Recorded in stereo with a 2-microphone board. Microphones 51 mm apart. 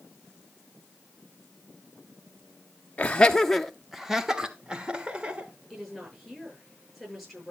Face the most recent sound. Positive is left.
turn(degrees=0)  # may be behind; listen again after turning